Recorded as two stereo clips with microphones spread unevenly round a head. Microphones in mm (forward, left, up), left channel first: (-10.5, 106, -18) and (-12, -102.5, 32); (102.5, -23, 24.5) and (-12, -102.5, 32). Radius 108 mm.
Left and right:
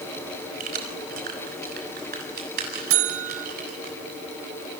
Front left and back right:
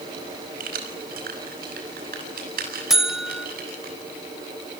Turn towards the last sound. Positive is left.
turn(degrees=-60)